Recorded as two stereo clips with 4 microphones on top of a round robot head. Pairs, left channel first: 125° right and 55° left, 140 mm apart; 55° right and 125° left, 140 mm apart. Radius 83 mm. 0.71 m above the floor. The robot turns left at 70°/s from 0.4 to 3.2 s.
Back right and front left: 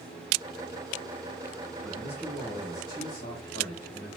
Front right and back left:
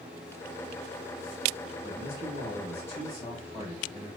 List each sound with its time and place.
1.8 s a man speaking: 30° right, 2.5 m; by 4.1 s 125° right, 2.5 m